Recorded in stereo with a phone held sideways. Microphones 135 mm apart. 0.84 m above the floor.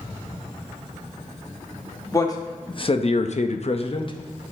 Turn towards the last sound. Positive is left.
turn(degrees=30)  # may be behind; listen again after turning